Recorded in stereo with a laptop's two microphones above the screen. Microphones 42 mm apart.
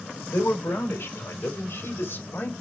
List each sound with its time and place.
0.3 s a man speaking: 60° left (ahead or behind), 4 m; by 2.5 s 50° left (ahead or behind), 5 m